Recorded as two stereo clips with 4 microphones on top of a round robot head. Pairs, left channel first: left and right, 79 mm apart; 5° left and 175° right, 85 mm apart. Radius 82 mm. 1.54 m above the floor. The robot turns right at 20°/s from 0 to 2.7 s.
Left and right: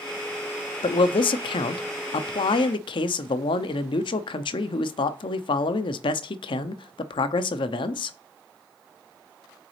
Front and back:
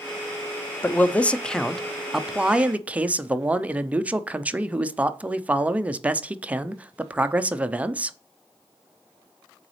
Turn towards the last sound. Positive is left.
turn(degrees=110)